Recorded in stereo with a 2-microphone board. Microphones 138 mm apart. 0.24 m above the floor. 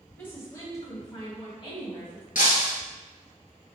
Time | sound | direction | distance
0.2 | a woman speaking | 15° left (ahead or behind) | 1.6 m
2.4 | breaking glass | 70° left (ahead or behind) | 1.3 m